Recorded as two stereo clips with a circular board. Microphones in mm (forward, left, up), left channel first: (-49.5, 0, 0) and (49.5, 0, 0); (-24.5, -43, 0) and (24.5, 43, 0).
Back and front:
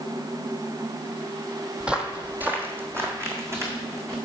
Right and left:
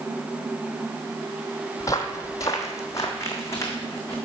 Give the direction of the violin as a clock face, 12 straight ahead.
I don't hear a violin.